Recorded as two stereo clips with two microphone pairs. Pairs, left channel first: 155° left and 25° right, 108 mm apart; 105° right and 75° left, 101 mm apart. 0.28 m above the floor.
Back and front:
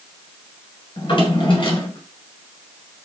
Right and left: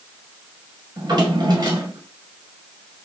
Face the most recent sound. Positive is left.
turn(degrees=120)